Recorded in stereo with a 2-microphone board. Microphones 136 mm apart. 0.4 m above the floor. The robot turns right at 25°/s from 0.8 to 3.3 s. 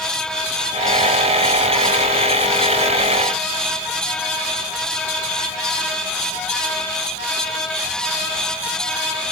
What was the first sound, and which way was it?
Only background noise.